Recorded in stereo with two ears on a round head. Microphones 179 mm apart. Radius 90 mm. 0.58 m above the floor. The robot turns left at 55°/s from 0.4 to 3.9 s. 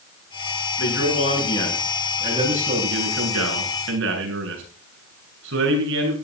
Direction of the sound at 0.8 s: 60° left.